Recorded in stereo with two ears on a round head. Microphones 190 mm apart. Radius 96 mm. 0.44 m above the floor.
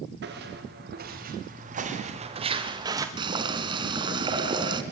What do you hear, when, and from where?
0.2 s footsteps: 55° right (ahead or behind), 6.5 m; by 3.1 s 15° right (ahead or behind), 4 m
3.2 s boiling: 25° right (ahead or behind), 3 m